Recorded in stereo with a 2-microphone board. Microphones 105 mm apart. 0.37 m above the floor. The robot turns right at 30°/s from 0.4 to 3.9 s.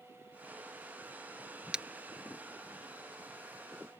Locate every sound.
1.7 s breaking glass: 10° right (ahead or behind); by 1.9 s 5° right (ahead or behind)